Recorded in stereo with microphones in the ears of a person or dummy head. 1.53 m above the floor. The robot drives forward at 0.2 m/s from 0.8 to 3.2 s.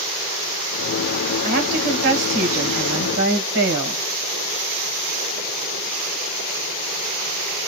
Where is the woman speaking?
50° right (ahead or behind), 1.4 m; by 4.0 s 60° right (ahead or behind), 1.2 m.